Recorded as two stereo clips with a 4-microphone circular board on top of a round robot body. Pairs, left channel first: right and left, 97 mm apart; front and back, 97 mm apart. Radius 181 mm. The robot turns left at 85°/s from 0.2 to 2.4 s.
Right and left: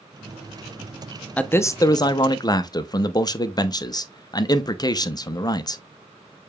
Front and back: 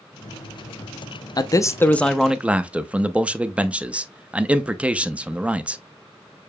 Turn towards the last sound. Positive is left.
turn(degrees=-110)